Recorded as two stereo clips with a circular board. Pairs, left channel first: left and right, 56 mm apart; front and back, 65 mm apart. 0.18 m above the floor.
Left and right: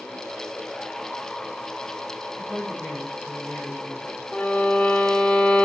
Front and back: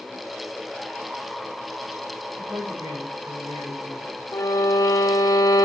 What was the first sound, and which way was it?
A woman speaking, 155° right.